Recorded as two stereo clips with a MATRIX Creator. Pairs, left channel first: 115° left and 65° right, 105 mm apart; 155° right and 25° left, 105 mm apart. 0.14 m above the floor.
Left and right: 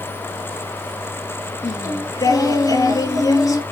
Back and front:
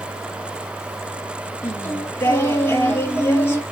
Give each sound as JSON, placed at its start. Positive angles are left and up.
{"t": 1.6, "sound": "singing", "azimuth_deg": 145, "distance_m": 1.3}